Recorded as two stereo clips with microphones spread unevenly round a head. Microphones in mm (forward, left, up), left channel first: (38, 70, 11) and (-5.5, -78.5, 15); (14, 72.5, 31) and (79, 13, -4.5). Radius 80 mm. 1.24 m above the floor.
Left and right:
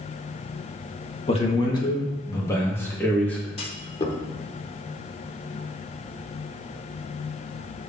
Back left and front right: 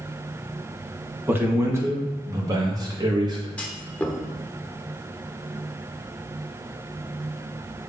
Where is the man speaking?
20° left, 1.8 m; by 3.5 s 10° right, 2.5 m.